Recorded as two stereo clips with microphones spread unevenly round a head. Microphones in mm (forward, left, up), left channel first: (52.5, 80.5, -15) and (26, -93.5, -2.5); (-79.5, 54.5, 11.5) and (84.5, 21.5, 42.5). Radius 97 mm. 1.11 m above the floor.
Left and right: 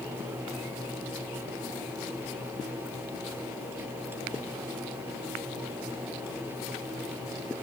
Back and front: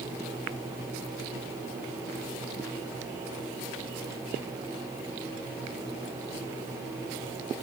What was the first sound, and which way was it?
Only background noise.